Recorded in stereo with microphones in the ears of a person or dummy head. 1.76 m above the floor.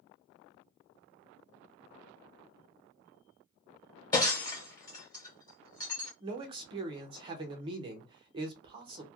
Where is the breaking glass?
20° left (ahead or behind), 1.1 m.